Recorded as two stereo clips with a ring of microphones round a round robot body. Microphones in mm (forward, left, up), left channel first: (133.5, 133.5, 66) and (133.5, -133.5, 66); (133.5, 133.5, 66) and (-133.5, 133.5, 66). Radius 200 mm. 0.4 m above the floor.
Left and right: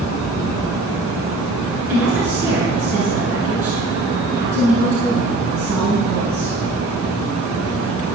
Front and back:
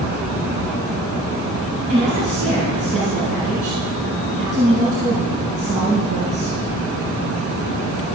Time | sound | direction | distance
1.9 | a woman speaking | 135° right | 4.5 m